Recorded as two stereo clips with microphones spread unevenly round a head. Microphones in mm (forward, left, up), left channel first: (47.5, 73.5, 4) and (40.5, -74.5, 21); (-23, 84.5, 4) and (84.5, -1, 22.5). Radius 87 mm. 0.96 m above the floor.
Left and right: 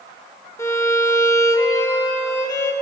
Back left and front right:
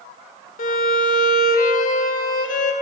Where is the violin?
160° left, 0.8 m.